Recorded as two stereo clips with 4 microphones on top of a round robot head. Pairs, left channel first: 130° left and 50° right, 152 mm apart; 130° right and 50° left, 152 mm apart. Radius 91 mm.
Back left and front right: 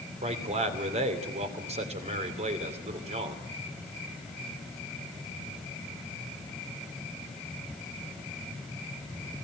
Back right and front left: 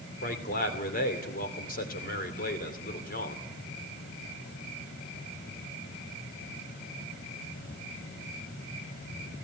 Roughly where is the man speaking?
Right.